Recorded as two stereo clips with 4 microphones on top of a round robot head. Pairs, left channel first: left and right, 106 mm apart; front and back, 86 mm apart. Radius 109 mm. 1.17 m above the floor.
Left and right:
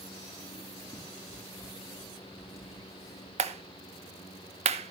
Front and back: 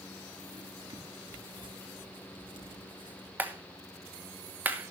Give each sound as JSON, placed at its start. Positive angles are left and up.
{"t": 0.5, "sound": "writing", "azimuth_deg": 155, "distance_m": 6.0}
{"t": 3.4, "sound": "a clap", "azimuth_deg": -105, "distance_m": 1.3}